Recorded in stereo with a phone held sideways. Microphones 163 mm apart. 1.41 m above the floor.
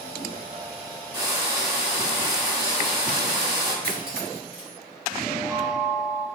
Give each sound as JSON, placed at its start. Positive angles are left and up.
{"t": 1.1, "sound": "frying", "side_deg": -25, "distance_m": 1.8}
{"t": 3.8, "sound": "cutlery clinking", "side_deg": -65, "distance_m": 1.9}
{"t": 5.2, "sound": "a chime", "side_deg": -10, "distance_m": 1.8}